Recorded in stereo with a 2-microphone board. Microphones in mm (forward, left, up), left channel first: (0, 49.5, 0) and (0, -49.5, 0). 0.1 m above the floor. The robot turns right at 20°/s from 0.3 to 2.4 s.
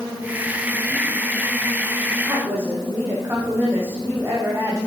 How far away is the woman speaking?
About 5 m.